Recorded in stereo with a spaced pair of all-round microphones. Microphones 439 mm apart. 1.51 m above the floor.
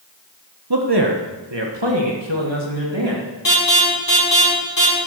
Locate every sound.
0.7 s a man speaking: 55° right (ahead or behind), 1.3 m; by 3.2 s 85° right, 3 m
3.5 s an alarm: 50° left (ahead or behind), 6.5 m